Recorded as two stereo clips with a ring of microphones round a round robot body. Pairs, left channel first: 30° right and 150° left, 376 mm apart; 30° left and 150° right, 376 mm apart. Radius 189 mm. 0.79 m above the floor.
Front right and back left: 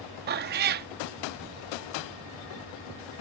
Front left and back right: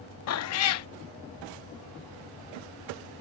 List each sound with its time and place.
0.3 s a cat meowing: 85° left